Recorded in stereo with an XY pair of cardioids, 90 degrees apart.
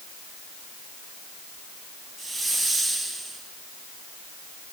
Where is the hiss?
5° right, 8.5 m.